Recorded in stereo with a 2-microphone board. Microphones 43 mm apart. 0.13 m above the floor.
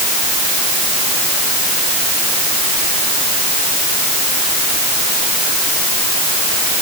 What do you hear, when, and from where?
Only background noise.